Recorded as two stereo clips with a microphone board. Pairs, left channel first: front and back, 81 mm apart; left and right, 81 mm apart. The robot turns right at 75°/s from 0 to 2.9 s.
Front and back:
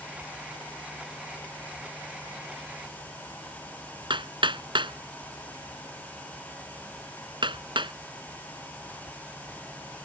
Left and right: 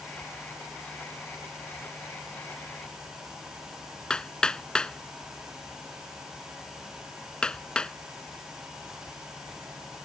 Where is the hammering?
170° left.